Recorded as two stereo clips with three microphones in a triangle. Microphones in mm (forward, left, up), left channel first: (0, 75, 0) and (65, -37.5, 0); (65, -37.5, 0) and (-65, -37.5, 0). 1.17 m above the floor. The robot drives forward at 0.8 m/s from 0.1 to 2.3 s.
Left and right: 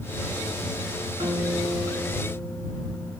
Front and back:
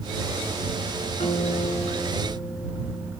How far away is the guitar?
About 7 m.